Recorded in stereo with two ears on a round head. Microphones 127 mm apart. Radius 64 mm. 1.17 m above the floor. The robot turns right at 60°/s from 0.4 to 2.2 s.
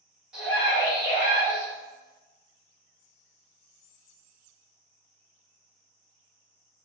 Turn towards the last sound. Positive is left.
turn(degrees=105)